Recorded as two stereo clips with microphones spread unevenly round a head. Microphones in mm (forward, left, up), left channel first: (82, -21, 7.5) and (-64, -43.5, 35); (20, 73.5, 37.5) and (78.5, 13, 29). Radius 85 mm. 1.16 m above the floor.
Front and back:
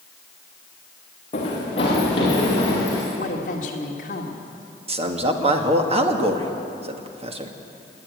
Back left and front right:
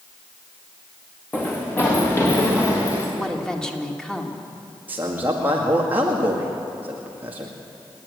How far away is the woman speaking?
About 2.5 m.